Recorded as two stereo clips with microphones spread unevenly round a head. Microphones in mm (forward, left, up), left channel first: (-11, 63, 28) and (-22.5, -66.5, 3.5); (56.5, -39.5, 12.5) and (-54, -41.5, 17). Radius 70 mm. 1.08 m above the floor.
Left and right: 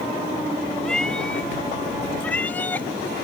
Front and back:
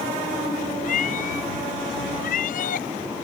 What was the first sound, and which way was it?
A cat meowing, straight ahead.